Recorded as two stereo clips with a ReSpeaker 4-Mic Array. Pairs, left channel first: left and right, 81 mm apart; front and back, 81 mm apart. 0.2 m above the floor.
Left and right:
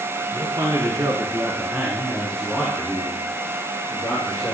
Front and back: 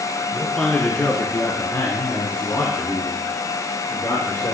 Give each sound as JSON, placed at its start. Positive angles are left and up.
{"t": 0.3, "sound": "a man speaking", "azimuth_deg": -85, "distance_m": 2.0}